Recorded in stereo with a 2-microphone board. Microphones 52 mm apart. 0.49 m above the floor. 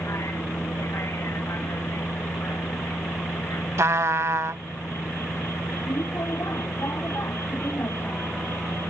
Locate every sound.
0.0 s a vehicle: 60° left (ahead or behind)
3.8 s a trumpet: 65° right (ahead or behind)